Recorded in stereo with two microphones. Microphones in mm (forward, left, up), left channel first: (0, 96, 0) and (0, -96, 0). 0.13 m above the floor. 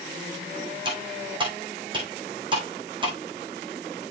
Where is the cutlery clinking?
25° right (ahead or behind), 4.5 m.